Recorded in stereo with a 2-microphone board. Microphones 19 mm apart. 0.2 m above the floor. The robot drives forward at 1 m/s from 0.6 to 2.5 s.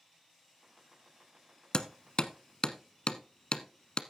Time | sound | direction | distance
1.7 | hammering | 50° left (ahead or behind) | 0.9 m